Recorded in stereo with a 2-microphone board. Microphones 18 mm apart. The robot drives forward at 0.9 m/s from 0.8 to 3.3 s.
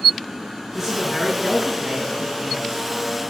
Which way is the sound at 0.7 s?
25° right (ahead or behind).